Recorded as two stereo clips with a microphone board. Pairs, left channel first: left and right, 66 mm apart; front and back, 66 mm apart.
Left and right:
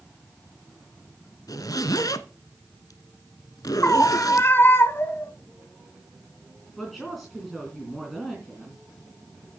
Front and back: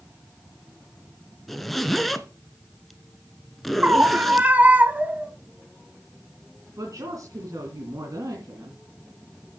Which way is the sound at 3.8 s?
125° left.